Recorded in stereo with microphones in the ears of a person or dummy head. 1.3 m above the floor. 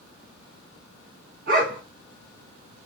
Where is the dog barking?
55° right (ahead or behind), 1.7 m.